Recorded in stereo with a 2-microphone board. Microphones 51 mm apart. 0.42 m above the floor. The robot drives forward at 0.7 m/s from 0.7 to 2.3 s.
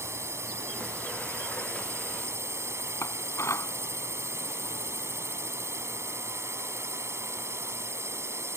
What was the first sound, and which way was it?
A drone, 60° right (ahead or behind).